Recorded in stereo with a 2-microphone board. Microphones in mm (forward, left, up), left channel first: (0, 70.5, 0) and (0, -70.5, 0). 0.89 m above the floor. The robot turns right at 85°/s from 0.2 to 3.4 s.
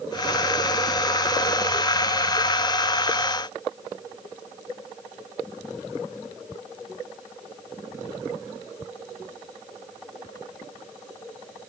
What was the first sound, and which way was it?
Only background noise.